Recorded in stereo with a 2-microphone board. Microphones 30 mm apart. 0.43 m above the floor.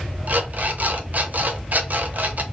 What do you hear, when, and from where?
0.3 s an alarm clock: 60° right (ahead or behind), 0.8 m